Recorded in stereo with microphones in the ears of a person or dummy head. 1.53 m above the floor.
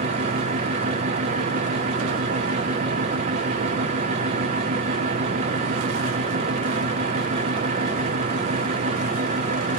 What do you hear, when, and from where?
0.0 s a fan: 30° right (ahead or behind), 0.8 m